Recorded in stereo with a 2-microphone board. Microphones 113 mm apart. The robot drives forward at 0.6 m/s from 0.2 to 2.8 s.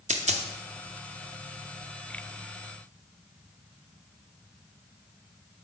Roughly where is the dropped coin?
Right.